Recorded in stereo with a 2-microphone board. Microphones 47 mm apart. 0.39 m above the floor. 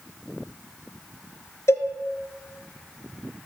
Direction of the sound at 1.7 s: 80° left.